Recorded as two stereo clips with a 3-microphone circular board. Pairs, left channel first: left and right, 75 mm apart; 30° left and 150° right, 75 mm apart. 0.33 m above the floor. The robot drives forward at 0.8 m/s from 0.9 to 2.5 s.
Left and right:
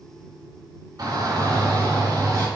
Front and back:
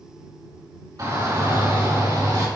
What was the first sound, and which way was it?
A shout, 120° right.